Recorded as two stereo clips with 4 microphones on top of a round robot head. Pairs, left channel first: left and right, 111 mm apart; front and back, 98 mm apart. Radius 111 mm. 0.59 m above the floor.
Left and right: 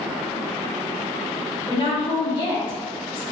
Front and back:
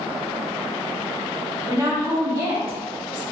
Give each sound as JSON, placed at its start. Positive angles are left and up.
{"t": 1.7, "sound": "a woman speaking", "azimuth_deg": 120, "distance_m": 1.6}